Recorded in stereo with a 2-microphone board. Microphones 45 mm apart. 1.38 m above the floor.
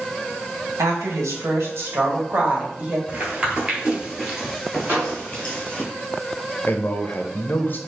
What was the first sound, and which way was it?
A woman speaking, 85° right.